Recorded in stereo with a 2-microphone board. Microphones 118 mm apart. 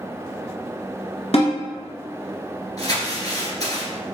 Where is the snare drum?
60° left (ahead or behind), 1.5 m.